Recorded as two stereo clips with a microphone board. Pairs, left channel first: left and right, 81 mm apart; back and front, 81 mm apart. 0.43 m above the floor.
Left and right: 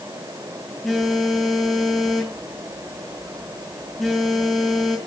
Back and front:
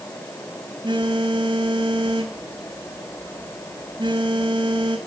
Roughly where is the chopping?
No chopping in this recording.